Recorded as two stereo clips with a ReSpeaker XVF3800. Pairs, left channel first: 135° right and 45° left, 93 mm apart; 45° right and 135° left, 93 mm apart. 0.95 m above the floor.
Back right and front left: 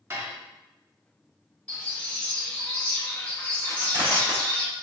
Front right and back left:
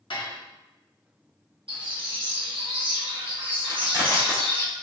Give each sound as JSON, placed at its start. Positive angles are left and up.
{"t": 0.1, "sound": "dishes clattering", "azimuth_deg": -20, "distance_m": 1.0}
{"t": 1.7, "sound": "a bird", "azimuth_deg": 150, "distance_m": 1.1}
{"t": 3.7, "sound": "crushing", "azimuth_deg": 85, "distance_m": 2.0}